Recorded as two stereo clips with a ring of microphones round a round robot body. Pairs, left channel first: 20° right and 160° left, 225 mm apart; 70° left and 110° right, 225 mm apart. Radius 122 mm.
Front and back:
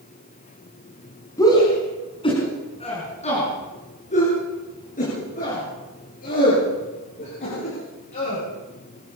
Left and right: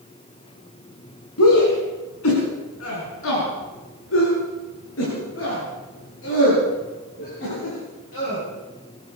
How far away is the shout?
About 4.5 m.